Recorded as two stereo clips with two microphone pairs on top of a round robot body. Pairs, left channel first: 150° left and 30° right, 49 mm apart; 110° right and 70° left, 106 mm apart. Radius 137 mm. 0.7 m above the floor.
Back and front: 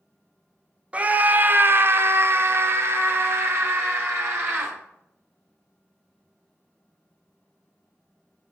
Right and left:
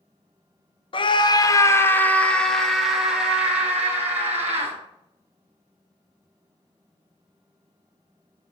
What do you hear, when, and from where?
0.9 s a scream: 80° right, 1.1 m; by 4.8 s straight ahead, 2.5 m